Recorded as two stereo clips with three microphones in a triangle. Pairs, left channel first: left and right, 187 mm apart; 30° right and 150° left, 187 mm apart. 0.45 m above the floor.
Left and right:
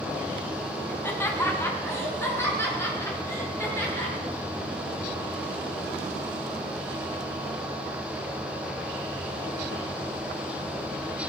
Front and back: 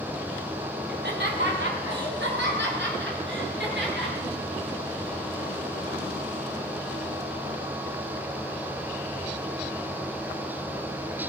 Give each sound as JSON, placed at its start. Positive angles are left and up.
{"t": 0.9, "sound": "laughter", "azimuth_deg": 165, "distance_m": 3.0}